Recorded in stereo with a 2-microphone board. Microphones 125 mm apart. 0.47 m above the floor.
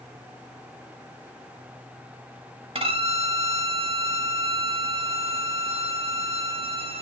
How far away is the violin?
About 0.5 m.